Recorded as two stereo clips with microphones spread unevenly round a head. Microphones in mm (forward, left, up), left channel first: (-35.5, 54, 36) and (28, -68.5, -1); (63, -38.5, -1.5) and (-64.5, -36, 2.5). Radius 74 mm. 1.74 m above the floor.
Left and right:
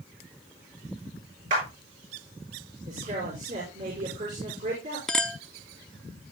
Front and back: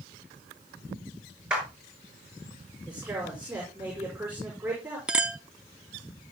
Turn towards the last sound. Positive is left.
turn(degrees=115)